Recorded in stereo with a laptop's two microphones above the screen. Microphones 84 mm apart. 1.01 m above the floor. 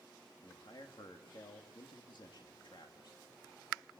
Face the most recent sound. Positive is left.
turn(degrees=60)  # may be behind; listen again after turning